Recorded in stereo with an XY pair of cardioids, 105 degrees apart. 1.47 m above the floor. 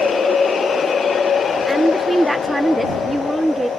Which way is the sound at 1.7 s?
Straight ahead.